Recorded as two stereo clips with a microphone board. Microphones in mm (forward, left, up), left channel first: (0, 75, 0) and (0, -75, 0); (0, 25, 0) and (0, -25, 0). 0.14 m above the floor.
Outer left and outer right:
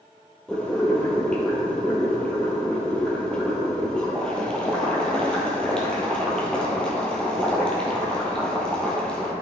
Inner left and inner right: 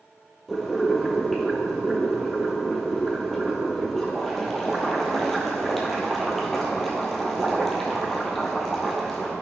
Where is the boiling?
5° left (ahead or behind), 2 m.